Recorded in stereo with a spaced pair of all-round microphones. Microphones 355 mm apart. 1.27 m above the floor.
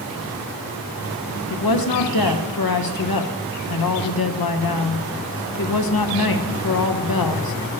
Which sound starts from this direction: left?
A woman speaking, at 1.5 s.